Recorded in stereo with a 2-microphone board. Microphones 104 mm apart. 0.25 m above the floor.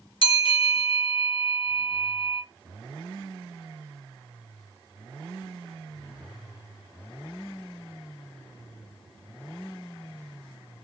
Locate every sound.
0.2 s a bell: 60° left (ahead or behind), 2.5 m